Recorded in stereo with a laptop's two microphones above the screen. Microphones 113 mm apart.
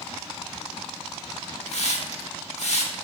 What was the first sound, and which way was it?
A hiss, 75° left (ahead or behind).